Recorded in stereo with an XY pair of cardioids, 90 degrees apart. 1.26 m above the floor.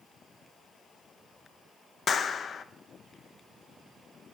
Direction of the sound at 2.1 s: 55° left.